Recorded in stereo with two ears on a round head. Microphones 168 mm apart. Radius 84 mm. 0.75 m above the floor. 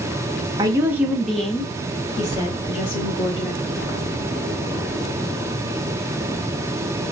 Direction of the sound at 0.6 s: 20° right (ahead or behind).